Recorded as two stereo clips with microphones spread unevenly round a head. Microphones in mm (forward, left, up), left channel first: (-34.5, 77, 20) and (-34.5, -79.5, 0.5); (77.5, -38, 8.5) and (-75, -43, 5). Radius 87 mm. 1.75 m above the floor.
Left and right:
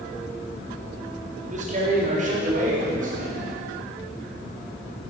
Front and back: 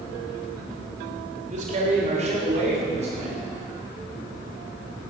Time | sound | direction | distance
1.5 | a man speaking | 135° right | 3.5 m